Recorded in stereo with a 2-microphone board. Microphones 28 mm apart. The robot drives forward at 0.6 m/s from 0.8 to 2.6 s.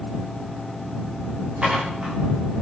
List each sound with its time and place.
1.6 s dishes clattering: 35° right (ahead or behind), 9.5 m